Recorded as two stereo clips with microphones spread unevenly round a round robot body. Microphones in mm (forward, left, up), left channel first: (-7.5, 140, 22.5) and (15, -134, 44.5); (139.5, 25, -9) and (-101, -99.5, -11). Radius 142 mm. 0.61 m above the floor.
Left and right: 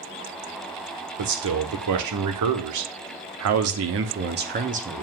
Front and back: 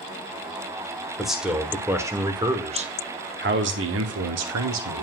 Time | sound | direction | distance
1.2 | a man speaking | 65° right | 1.8 m